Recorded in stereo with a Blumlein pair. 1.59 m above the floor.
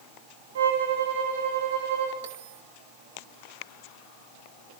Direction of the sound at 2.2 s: 55° right.